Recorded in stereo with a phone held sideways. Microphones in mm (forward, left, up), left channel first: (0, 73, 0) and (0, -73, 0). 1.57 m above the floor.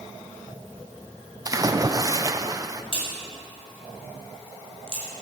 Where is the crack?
40° left (ahead or behind), 5 m.